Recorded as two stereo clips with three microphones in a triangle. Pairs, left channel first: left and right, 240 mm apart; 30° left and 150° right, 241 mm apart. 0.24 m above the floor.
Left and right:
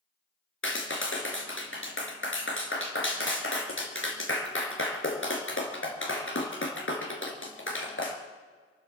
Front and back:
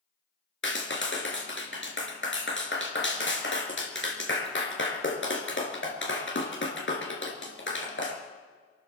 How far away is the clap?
About 3 m.